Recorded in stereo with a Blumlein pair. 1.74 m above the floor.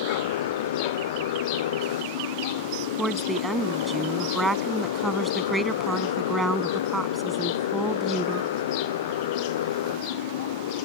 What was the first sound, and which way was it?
A motorcycle, 55° left.